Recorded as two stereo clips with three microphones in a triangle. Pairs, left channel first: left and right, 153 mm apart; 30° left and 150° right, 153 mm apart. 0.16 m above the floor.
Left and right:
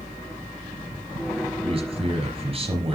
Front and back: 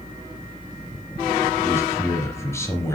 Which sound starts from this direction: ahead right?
A man speaking, at 1.6 s.